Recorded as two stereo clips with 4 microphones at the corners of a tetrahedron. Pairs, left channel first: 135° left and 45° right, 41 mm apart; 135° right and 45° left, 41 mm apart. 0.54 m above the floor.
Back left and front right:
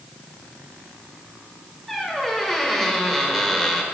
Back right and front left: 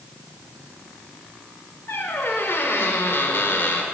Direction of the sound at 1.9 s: 140° right.